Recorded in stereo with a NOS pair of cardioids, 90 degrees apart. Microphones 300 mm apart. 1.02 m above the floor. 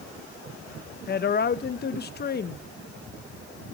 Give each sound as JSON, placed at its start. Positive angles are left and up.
{"t": 1.1, "sound": "a woman speaking", "azimuth_deg": 35, "distance_m": 0.6}